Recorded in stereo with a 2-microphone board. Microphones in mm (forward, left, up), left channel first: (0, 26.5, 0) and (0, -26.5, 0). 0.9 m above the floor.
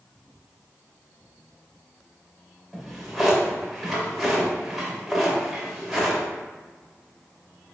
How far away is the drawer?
About 1.2 m.